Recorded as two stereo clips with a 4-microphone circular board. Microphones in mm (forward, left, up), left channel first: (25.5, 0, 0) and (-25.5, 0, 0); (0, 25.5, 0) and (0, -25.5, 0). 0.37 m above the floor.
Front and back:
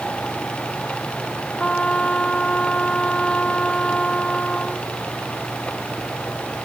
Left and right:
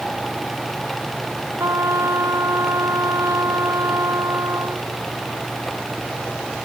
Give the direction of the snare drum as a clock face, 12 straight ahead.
No snare drum in this recording.